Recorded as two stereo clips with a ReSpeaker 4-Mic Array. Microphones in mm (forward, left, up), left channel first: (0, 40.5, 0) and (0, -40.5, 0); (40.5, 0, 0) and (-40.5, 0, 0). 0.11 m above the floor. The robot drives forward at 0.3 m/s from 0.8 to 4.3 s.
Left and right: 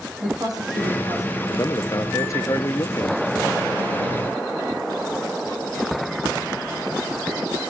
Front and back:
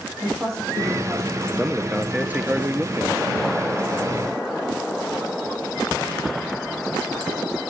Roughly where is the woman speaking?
Behind right.